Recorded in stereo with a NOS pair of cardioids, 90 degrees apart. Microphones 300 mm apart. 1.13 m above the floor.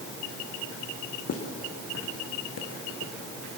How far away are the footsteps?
About 4 m.